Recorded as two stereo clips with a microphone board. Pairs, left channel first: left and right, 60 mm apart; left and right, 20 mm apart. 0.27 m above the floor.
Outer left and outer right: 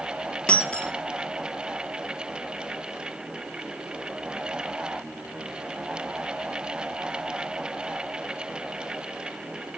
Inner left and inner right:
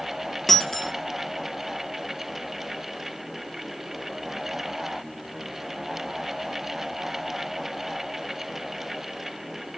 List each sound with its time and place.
0.5 s breaking glass: 20° left (ahead or behind), 2.5 m